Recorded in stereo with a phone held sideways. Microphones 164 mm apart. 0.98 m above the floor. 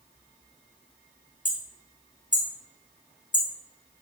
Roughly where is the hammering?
Left.